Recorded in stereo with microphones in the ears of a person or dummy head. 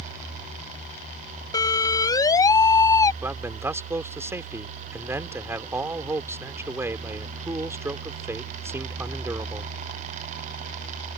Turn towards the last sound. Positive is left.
turn(degrees=-10)  # may be behind; listen again after turning